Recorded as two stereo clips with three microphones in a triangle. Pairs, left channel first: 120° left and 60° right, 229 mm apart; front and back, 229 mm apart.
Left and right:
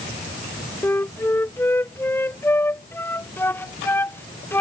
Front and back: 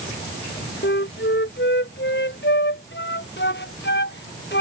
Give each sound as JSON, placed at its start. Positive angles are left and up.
{"t": 0.8, "sound": "a flute", "azimuth_deg": 40}